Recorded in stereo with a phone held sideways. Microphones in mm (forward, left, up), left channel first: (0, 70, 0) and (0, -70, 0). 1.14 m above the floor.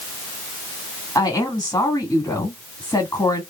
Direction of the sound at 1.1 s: 25° left (ahead or behind).